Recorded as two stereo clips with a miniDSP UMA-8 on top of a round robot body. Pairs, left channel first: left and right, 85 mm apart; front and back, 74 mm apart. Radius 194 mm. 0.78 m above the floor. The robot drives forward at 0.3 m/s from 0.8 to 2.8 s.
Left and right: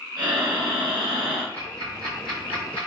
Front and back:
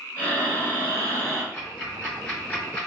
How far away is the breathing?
About 0.6 m.